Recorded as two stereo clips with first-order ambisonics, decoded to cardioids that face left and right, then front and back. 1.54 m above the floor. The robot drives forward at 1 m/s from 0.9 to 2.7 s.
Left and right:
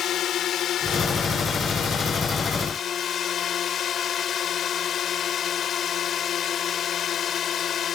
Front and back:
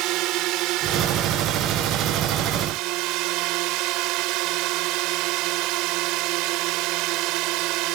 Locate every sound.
0.0 s a drone: 145° left; by 8.0 s 150° left